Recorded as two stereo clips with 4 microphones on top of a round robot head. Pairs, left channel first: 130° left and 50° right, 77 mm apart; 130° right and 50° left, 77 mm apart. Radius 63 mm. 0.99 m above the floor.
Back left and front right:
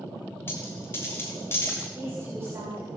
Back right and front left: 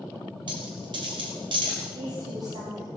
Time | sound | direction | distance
0.5 | a dropped coin | 70° left | 3 m
1.9 | a woman speaking | 15° left | 5.5 m